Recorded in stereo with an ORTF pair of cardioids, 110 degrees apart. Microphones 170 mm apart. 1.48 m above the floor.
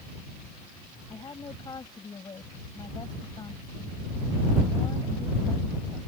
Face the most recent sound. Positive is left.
turn(degrees=25)